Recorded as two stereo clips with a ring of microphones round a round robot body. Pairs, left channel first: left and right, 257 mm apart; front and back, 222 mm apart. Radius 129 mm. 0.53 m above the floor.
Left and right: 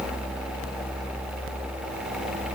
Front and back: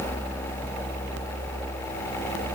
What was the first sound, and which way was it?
Only background noise.